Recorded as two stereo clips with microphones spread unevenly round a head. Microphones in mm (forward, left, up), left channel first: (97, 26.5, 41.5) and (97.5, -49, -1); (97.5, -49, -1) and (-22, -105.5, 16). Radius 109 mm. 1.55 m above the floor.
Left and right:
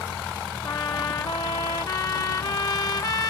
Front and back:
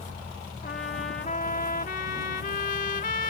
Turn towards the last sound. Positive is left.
turn(degrees=80)